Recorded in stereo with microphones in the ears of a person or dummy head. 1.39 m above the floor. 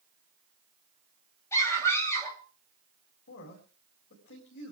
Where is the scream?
20° left (ahead or behind), 7.5 m.